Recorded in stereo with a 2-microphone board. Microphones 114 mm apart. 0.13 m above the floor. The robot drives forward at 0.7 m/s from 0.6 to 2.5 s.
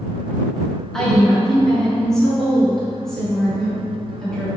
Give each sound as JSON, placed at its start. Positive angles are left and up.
{"t": 0.9, "sound": "a woman speaking", "side_deg": 5, "distance_m": 1.3}